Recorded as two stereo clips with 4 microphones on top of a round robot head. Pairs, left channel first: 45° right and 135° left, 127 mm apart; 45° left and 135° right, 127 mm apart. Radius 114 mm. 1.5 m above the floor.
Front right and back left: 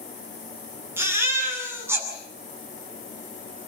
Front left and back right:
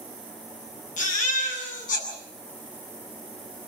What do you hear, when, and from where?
1.0 s a baby crying: 65° left, 8.5 m